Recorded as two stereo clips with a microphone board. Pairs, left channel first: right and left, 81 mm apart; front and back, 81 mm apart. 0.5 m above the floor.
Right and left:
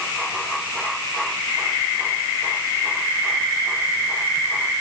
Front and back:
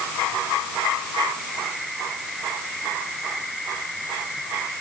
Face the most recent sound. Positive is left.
No sound to turn to.